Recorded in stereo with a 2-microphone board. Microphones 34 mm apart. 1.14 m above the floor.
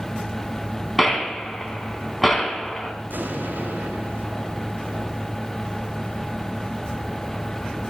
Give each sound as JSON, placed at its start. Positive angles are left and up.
{"t": 1.0, "sound": "a gunshot", "side_deg": 5, "distance_m": 4.0}
{"t": 3.1, "sound": "an explosion", "side_deg": -75, "distance_m": 3.0}